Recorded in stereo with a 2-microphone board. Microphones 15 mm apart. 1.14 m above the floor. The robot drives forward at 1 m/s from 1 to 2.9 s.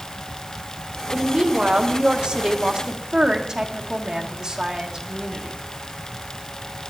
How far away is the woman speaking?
About 1.4 m.